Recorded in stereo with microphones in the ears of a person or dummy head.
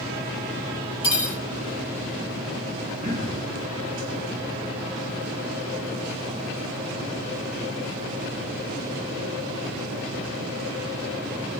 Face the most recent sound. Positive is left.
turn(degrees=-50)  # may be behind; listen again after turning